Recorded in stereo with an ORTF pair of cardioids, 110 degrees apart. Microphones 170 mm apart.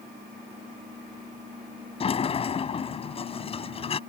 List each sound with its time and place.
2.0 s a sliding door: 35° left